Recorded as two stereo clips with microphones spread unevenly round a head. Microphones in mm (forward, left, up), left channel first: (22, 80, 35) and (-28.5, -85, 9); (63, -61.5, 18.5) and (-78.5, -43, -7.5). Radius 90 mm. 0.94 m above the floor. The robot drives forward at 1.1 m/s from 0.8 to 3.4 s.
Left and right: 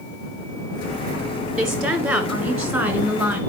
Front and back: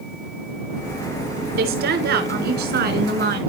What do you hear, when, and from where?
1.6 s a woman speaking: 165° left, 5 m; by 3.4 s 170° left, 7 m